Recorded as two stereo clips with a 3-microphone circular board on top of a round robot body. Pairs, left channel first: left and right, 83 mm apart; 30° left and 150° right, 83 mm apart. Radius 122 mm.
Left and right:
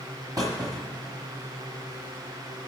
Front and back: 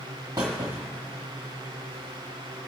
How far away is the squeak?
About 0.7 m.